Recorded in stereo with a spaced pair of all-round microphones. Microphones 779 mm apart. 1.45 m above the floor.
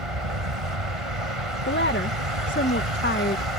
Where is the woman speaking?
15° left (ahead or behind).